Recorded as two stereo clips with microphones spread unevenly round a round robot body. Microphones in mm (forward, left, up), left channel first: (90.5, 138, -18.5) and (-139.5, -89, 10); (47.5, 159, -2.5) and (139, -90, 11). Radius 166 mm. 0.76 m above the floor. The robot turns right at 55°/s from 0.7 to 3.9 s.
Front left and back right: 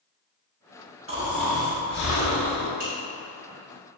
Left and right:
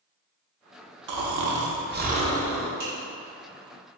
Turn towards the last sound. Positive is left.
turn(degrees=-5)